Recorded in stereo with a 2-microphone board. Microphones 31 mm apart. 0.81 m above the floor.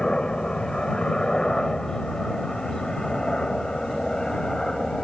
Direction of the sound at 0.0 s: 25° left (ahead or behind).